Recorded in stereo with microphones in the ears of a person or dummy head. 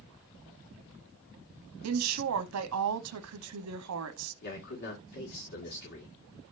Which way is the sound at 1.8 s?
80° right.